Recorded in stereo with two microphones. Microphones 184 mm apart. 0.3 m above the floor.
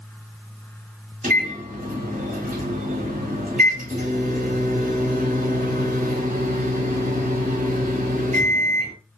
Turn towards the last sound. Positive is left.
turn(degrees=-45)  # may be behind; listen again after turning